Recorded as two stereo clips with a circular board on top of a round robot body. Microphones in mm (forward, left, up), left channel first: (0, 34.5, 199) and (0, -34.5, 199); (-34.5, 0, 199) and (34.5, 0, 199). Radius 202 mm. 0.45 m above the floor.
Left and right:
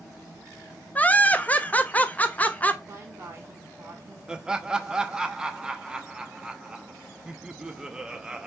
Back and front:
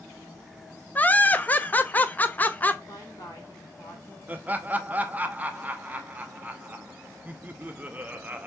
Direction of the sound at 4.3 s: 25° right.